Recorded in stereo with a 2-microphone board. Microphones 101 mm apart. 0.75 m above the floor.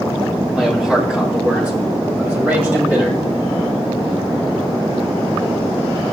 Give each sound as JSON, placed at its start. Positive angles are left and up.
{"t": 0.5, "sound": "a man speaking", "side_deg": -5, "distance_m": 3.0}